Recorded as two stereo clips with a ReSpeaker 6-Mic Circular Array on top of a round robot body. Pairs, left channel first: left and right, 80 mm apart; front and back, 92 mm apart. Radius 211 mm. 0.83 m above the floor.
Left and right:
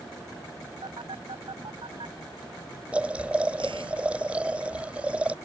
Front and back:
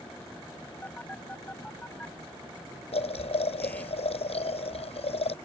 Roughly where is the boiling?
Ahead.